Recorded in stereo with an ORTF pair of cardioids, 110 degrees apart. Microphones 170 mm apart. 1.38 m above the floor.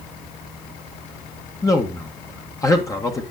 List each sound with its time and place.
1.6 s a man speaking: 20° left, 1.6 m